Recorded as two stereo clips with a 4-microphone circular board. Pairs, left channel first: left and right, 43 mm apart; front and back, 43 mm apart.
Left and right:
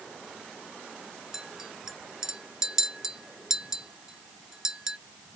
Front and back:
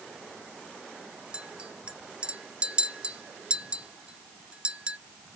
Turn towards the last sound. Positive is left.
turn(degrees=-155)